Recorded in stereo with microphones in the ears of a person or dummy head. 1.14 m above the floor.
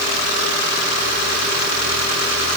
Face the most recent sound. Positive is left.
No sound to turn to.